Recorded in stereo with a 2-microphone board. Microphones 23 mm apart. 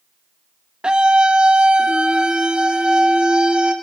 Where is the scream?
45° right (ahead or behind), 1.5 m; by 3.7 s 40° right (ahead or behind), 4 m.